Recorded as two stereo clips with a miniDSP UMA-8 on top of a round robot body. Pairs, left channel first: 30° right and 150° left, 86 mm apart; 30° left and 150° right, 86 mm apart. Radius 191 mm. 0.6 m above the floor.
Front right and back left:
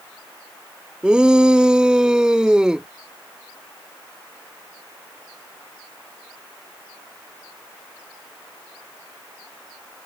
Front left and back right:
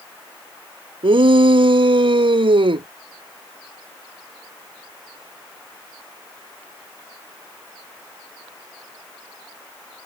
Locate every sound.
1.0 s a shout: 130° right